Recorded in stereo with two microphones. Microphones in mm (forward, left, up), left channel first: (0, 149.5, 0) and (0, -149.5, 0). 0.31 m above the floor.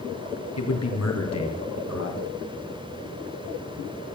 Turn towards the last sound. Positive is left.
turn(degrees=65)  # may be behind; listen again after turning